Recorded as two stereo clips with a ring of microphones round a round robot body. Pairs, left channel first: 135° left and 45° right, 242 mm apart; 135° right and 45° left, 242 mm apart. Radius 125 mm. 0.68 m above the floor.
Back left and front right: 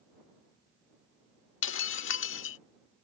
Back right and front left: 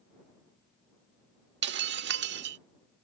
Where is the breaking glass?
95° left.